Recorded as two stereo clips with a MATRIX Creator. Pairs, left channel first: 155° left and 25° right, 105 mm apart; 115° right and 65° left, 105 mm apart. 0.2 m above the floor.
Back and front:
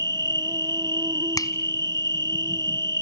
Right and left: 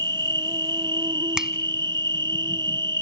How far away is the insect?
About 0.8 m.